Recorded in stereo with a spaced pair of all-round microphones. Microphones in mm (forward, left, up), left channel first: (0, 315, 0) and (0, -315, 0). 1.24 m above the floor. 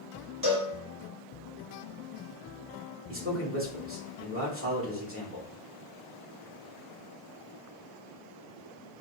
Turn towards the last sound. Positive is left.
turn(degrees=-20)  # may be behind; listen again after turning